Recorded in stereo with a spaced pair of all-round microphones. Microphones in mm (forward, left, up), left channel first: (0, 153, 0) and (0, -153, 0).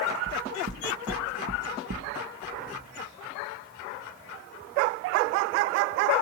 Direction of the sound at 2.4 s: 65° left (ahead or behind).